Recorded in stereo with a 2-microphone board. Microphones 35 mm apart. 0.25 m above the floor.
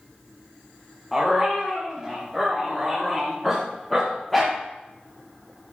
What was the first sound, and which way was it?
A dog barking, 5° left (ahead or behind).